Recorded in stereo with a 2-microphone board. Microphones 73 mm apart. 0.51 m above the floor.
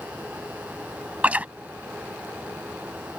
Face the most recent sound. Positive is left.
turn(degrees=-20)  # may be behind; listen again after turning